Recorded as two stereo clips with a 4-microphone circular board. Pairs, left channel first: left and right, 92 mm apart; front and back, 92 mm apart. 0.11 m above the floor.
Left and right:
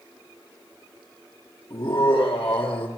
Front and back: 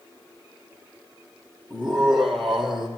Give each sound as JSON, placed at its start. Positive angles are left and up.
{"t": 1.7, "sound": "laughter", "azimuth_deg": 75, "distance_m": 2.5}